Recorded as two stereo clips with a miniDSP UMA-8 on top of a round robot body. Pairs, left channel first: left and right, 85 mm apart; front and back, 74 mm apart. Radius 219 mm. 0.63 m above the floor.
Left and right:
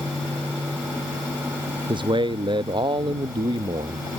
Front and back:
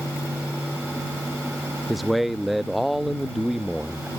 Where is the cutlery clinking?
I don't hear cutlery clinking.